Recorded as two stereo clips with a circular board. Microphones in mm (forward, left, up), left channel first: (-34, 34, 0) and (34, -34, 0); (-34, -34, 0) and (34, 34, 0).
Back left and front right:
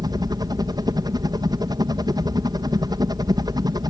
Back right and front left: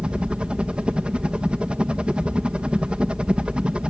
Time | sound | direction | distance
0.0 | a helicopter | 30° right | ?